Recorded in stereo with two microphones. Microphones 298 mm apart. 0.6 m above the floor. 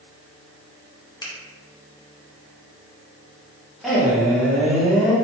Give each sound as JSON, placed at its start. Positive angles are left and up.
{"t": 1.2, "sound": "a finger snap", "side_deg": 15, "distance_m": 0.7}
{"t": 3.8, "sound": "a man speaking", "side_deg": 0, "distance_m": 1.3}